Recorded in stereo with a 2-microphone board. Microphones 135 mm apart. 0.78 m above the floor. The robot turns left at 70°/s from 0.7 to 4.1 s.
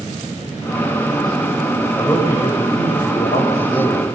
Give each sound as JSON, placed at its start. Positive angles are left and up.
{"t": 2.0, "sound": "a man speaking", "azimuth_deg": 165, "distance_m": 4.5}